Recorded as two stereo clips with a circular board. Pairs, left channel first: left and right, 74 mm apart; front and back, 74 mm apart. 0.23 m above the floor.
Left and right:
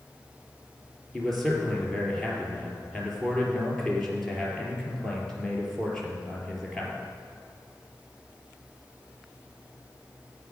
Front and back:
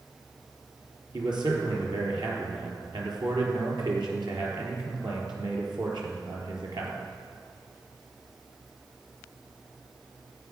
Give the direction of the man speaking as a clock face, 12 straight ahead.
6 o'clock.